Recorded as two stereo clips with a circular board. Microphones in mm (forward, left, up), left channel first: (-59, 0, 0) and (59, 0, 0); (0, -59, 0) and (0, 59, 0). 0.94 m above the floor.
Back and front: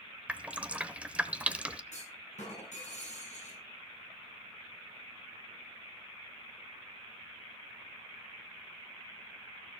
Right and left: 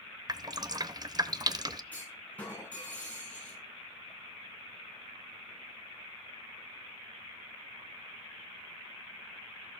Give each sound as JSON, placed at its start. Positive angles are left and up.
{"t": 0.3, "sound": "dripping", "azimuth_deg": 70, "distance_m": 0.8}
{"t": 1.9, "sound": "a clunk", "azimuth_deg": -165, "distance_m": 6.5}